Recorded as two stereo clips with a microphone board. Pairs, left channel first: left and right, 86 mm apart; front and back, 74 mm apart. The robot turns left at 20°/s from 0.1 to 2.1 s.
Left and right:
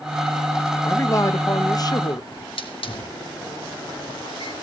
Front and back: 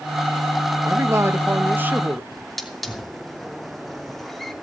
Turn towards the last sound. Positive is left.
turn(degrees=85)